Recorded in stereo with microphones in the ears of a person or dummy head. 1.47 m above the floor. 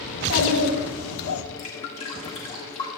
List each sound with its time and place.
0.1 s a child speaking: 70° left (ahead or behind), 2.5 m; by 1.4 s 80° left, 1.1 m
1.6 s dripping: 30° left (ahead or behind), 1.6 m